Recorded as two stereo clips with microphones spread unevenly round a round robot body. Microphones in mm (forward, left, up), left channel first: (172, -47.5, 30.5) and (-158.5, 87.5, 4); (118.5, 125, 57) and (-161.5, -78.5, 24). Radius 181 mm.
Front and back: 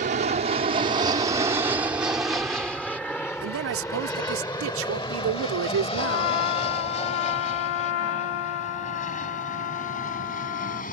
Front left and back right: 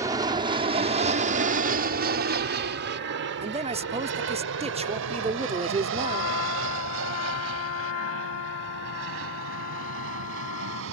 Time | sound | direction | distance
0.0 | an aircraft | 165° left | ?
3.4 | a man speaking | 160° left | ?
6.0 | a trumpet | 10° right | ?